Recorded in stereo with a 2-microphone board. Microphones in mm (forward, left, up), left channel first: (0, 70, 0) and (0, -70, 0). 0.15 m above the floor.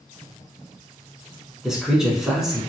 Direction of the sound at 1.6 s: 5° right (ahead or behind).